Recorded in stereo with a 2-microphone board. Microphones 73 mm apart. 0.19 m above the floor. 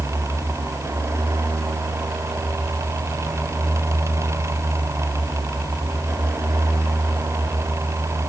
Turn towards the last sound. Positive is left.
No sound to turn to.